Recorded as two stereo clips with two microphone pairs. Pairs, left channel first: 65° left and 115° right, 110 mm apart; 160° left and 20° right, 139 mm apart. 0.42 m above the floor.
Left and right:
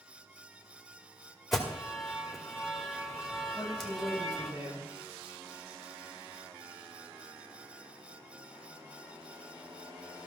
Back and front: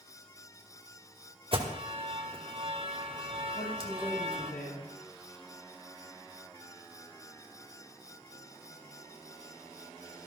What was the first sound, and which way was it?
An alarm, 20° right.